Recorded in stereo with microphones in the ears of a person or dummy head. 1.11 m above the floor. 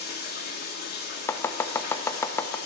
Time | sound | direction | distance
0.0 | running water | 50° left (ahead or behind) | 1.5 m
1.3 | chopping | 15° left (ahead or behind) | 0.6 m